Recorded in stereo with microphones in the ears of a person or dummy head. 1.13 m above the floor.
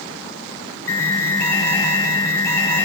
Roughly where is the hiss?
I don't hear a hiss.